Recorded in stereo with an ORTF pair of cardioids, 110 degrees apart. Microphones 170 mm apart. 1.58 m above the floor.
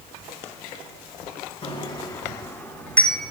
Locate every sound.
1.6 s a bicycle bell: 40° left, 2.5 m; by 3.3 s 5° left, 4 m